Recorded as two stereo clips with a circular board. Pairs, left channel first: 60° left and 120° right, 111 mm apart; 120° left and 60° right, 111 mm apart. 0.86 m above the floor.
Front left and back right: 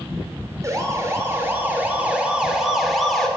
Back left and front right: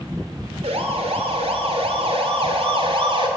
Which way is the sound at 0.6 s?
60° right.